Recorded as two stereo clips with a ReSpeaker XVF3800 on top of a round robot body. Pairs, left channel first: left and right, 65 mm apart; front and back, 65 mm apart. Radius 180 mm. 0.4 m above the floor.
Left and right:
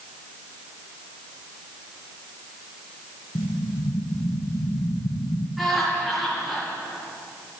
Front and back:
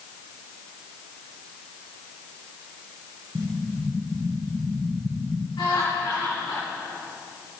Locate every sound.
3.4 s an explosion: 115° left, 0.7 m
5.6 s laughter: straight ahead, 6.5 m